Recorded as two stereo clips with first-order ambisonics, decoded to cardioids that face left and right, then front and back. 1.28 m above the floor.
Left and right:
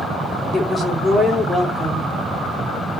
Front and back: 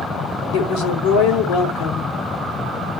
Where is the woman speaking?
Straight ahead, 2.5 m.